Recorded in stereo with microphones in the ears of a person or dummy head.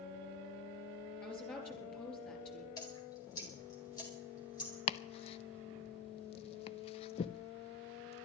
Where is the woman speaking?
10° left (ahead or behind), 4 m.